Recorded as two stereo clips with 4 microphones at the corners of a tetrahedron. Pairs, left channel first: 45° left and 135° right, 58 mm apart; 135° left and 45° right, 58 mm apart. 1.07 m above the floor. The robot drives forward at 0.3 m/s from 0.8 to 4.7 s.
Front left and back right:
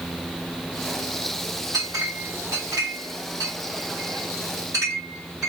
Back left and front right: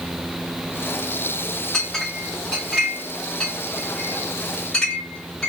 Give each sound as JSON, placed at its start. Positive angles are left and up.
{"t": 1.7, "sound": "a clink", "azimuth_deg": -145, "distance_m": 1.5}